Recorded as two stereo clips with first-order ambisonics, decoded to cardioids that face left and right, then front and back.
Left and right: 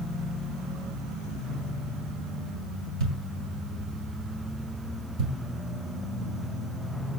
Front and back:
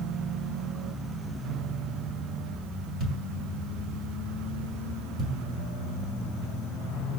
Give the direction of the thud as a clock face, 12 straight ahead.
4 o'clock.